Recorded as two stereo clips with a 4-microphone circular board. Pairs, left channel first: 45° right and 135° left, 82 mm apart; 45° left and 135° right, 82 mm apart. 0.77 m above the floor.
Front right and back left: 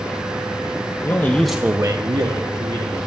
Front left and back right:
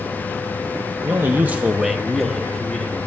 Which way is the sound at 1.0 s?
75° right.